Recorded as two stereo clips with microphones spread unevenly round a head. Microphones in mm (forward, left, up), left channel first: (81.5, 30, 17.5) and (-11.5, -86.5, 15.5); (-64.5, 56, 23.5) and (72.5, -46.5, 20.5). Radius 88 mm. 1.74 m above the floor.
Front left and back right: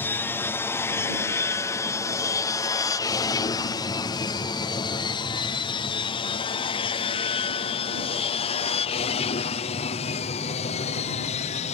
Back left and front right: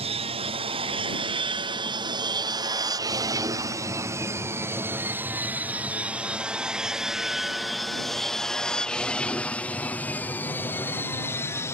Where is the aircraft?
15° right; by 11.8 s 75° left.